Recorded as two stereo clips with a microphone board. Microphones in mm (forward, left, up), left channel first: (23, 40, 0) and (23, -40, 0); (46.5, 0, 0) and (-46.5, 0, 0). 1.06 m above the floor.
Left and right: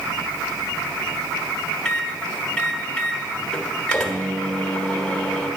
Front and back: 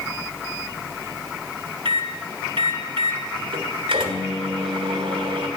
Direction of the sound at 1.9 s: 170° left.